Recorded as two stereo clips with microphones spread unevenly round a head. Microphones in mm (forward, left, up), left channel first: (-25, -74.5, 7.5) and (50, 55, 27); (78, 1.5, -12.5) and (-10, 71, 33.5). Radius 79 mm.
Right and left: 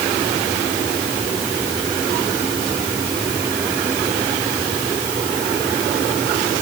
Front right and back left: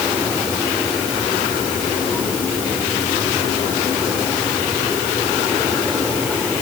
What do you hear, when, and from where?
Only background noise.